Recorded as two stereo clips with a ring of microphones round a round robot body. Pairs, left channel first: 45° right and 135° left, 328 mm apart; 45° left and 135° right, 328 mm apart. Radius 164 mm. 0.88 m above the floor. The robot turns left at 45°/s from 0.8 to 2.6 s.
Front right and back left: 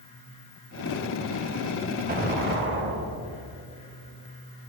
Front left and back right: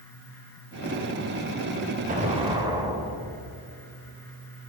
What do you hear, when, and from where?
2.1 s an explosion: straight behind, 0.6 m; by 3.6 s 155° left, 0.6 m